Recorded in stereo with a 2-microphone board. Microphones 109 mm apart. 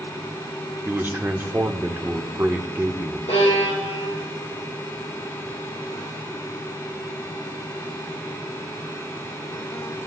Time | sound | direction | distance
0.8 | a man speaking | 20° right (ahead or behind) | 1.0 m
3.3 | a violin | 80° left | 4 m